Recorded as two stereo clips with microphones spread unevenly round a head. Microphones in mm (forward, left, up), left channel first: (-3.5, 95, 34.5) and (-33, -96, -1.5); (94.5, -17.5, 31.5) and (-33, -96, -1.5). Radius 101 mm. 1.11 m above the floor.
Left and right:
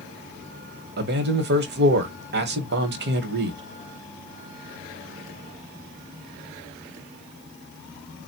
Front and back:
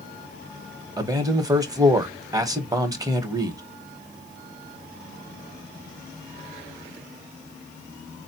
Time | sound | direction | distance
1.0 | a man speaking | 90° right | 1.1 m